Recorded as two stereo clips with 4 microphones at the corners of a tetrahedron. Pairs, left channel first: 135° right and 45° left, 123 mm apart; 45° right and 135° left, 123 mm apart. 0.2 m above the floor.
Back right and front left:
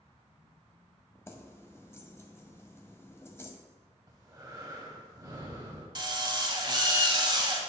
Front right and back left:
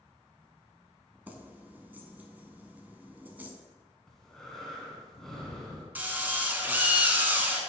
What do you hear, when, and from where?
1.3 s keys jangling: 170° right, 0.7 m
4.1 s breathing: 35° left, 1.3 m
6.0 s a drill: 70° left, 0.9 m